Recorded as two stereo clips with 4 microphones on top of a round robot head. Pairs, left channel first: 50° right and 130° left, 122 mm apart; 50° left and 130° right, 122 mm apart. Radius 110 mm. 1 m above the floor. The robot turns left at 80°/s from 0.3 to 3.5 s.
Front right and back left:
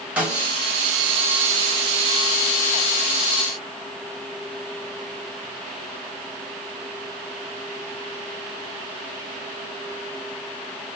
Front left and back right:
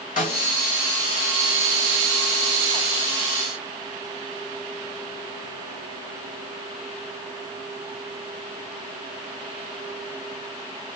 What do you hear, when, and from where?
0.2 s a snare drum: 50° left, 3.5 m; by 0.5 s 35° left, 3.5 m